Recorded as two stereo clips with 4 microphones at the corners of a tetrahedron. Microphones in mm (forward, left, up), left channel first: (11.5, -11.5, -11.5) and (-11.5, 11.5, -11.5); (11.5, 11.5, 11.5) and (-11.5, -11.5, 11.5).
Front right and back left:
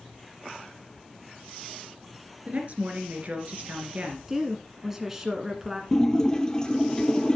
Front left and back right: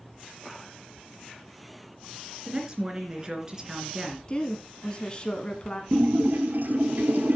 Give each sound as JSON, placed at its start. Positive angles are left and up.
{"t": 2.5, "sound": "a woman speaking", "azimuth_deg": 165, "distance_m": 2.5}
{"t": 4.3, "sound": "a woman speaking", "azimuth_deg": 65, "distance_m": 1.2}
{"t": 5.9, "sound": "a splash", "azimuth_deg": -115, "distance_m": 1.3}